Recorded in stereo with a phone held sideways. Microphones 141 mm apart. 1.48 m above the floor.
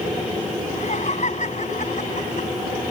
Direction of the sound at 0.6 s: 55° left (ahead or behind).